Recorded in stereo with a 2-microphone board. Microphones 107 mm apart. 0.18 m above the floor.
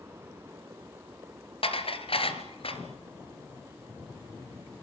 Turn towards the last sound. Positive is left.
turn(degrees=60)  # may be behind; listen again after turning